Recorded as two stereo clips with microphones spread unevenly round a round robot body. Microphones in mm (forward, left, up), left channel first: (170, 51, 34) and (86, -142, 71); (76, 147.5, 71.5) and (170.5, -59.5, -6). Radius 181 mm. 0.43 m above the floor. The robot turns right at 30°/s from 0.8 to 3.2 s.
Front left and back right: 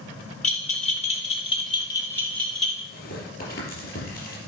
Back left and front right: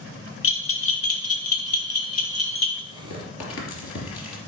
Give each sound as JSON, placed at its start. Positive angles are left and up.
{"t": 0.4, "sound": "a bell", "azimuth_deg": 90, "distance_m": 1.5}
{"t": 2.9, "sound": "tearing paper", "azimuth_deg": 100, "distance_m": 3.0}